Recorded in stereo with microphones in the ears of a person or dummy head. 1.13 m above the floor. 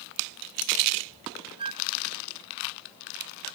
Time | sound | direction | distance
1.6 | a flute | 30° right (ahead or behind) | ?